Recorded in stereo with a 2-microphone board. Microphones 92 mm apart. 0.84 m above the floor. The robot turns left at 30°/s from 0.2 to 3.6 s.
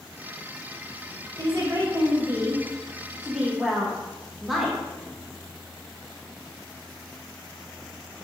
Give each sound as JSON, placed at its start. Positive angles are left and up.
{"t": 1.4, "sound": "a woman speaking", "azimuth_deg": -110, "distance_m": 0.6}